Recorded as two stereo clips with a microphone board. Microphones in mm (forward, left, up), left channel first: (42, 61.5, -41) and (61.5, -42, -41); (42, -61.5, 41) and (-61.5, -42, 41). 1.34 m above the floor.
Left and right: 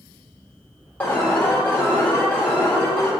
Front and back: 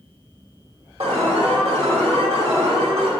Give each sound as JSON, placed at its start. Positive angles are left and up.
{"t": 1.0, "sound": "an alarm", "azimuth_deg": 175, "distance_m": 2.0}